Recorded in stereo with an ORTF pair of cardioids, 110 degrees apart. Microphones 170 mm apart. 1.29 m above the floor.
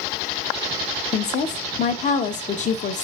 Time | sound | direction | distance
1.1 | a woman speaking | 45° left | 0.6 m